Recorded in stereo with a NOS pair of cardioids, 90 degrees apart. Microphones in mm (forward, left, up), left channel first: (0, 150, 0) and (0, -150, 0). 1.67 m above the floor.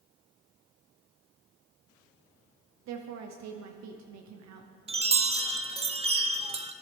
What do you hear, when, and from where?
2.9 s a woman speaking: 60° right, 0.8 m
4.9 s a chime: 20° right, 0.6 m